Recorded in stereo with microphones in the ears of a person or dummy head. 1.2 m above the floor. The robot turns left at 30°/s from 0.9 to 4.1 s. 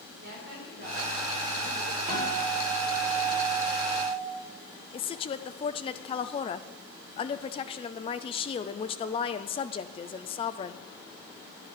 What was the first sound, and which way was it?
A woman speaking, 135° right.